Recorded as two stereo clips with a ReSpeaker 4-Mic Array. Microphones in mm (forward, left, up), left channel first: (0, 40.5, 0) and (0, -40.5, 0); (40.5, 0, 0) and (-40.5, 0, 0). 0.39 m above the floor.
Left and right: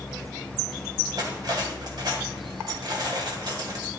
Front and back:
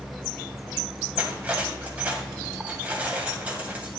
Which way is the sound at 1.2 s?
110° right.